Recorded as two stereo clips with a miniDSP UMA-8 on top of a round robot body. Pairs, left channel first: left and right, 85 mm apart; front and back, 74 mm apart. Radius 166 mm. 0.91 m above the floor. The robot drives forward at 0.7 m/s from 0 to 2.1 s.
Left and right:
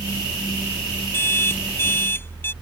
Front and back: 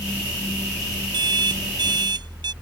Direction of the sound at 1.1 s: 155° left.